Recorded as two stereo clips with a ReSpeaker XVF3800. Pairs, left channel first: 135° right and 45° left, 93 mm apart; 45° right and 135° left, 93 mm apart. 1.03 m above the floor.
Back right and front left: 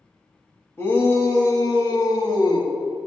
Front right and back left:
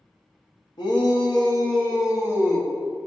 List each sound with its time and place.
0.8 s a shout: 70° right, 1.5 m; by 2.7 s 95° right, 2 m